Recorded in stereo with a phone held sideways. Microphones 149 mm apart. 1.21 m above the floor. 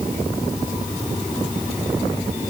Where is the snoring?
No snoring in this recording.